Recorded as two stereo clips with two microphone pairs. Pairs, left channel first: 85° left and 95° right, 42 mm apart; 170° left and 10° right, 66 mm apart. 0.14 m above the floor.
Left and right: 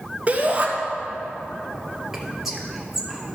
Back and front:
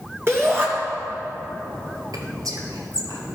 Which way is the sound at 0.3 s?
45° right.